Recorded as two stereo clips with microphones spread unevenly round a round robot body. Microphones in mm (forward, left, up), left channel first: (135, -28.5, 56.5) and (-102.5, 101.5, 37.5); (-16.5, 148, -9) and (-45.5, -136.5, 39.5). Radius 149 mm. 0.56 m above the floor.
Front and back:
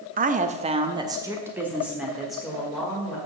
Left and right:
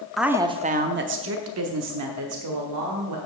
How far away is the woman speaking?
About 0.7 m.